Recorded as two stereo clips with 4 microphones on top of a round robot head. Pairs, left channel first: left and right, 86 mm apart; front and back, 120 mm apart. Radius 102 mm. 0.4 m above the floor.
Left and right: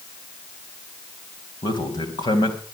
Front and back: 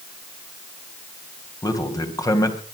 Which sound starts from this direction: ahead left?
A man speaking, at 1.6 s.